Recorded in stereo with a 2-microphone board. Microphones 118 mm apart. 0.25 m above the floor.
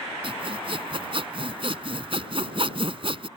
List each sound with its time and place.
0.2 s sawing: 50° right (ahead or behind)